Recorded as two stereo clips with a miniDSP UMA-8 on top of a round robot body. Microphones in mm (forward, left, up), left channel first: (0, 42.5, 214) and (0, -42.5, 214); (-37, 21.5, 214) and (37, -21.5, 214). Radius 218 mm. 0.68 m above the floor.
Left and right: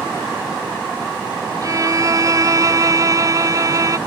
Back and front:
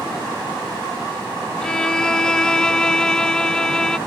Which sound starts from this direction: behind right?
A violin, at 1.6 s.